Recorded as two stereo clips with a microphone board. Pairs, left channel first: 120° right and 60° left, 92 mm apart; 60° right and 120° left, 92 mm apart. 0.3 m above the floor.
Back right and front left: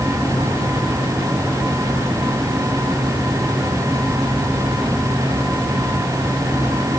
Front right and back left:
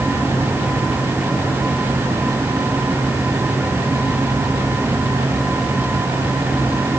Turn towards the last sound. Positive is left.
No sound to turn to.